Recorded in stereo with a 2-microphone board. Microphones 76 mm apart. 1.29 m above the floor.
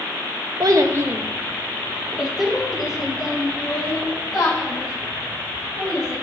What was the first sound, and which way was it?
A child speaking, 60° right (ahead or behind).